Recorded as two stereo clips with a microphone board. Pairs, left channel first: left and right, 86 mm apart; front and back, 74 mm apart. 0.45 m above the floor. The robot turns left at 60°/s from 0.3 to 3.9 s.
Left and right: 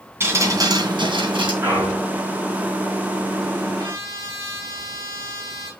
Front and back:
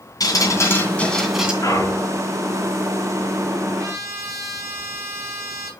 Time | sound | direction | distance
0.2 | dripping | 30° right | 2.5 m
1.6 | a clunk | 30° right | 6.5 m
3.8 | a trumpet | 135° right | 3.5 m